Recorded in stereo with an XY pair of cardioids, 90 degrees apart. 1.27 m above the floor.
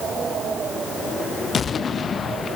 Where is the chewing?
No chewing in this recording.